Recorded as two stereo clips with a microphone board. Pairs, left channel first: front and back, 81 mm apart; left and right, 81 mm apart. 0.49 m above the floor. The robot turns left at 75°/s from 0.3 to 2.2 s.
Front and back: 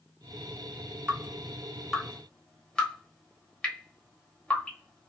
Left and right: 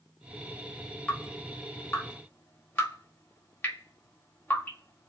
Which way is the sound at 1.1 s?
150° left.